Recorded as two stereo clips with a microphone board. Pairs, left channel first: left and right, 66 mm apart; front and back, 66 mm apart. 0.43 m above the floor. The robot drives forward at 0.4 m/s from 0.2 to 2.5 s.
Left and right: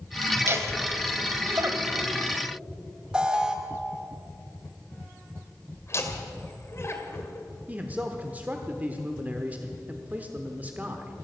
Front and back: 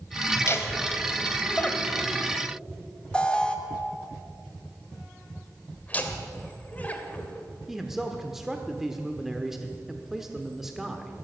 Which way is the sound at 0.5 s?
45° right.